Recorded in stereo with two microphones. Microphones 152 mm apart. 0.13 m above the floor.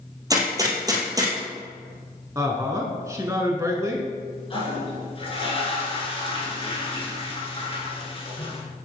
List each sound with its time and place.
0.3 s a gunshot: 20° right (ahead or behind), 1.7 m
2.4 s a woman speaking: 20° right (ahead or behind), 1.1 m
4.5 s a toilet flushing: 35° left (ahead or behind), 1.8 m